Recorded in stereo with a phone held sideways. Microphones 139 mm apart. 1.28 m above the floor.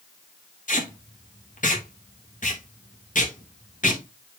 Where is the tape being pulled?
70° left (ahead or behind), 2.0 m.